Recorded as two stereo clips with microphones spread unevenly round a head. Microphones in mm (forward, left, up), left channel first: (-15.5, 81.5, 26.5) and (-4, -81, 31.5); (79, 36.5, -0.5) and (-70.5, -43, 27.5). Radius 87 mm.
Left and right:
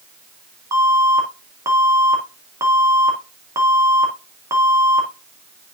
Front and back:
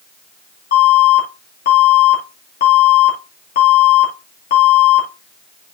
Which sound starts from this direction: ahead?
An alarm, at 0.7 s.